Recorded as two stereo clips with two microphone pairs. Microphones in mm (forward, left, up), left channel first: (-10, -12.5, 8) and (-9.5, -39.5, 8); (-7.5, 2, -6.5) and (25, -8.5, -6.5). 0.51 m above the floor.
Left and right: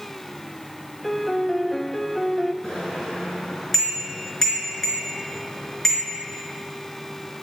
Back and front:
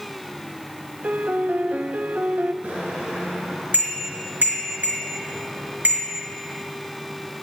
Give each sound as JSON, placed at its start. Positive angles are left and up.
{"t": 1.0, "sound": "a piano", "azimuth_deg": 5, "distance_m": 0.6}
{"t": 2.6, "sound": "a bicycle bell", "azimuth_deg": 10, "distance_m": 5.0}